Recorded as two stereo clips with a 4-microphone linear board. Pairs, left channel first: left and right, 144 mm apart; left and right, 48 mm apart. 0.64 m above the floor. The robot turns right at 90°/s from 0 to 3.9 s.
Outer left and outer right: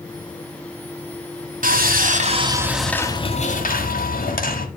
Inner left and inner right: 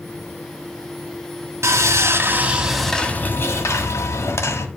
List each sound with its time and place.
1.6 s sawing: 105° right, 1.4 m; by 4.7 s 95° left, 1.4 m